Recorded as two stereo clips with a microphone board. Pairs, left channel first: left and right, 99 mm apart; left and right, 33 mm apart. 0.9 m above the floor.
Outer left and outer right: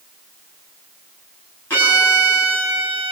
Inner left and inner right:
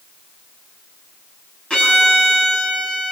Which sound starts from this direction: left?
A violin, at 1.7 s.